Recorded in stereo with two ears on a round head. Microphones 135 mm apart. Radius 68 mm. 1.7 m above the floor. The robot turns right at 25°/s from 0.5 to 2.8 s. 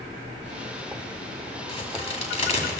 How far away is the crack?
About 2 m.